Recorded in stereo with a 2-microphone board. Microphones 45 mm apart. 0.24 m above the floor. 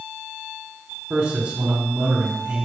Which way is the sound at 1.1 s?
50° right (ahead or behind).